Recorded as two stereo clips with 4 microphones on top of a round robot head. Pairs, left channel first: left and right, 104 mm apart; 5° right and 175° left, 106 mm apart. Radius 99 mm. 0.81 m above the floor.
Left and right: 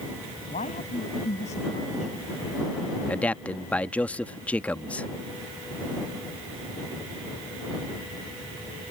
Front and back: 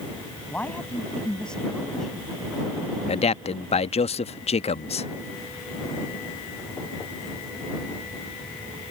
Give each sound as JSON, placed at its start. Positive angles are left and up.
{"t": 0.5, "sound": "a man speaking", "azimuth_deg": 70}
{"t": 3.1, "sound": "a man speaking", "azimuth_deg": 15}